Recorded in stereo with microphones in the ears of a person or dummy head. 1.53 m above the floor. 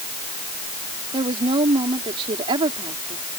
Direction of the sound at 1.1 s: 30° right (ahead or behind).